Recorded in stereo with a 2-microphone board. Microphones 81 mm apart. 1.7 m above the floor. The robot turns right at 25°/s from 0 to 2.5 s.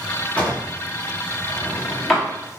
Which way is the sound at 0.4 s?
20° left (ahead or behind).